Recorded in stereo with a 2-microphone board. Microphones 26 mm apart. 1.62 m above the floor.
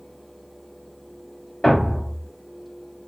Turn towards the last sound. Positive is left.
turn(degrees=10)  # may be behind; listen again after turning